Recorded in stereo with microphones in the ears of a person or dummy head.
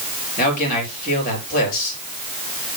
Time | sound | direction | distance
0.4 | a man speaking | 50° left (ahead or behind) | 4.5 m